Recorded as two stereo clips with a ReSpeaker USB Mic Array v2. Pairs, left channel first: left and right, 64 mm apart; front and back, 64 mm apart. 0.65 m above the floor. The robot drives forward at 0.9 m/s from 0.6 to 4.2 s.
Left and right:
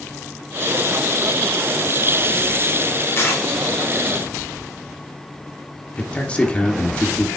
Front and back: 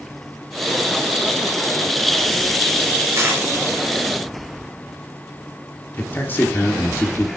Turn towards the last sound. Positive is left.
turn(degrees=30)